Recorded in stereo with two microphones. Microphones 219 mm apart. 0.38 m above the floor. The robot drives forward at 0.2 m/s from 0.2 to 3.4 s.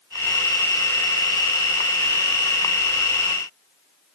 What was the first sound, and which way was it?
Only background noise.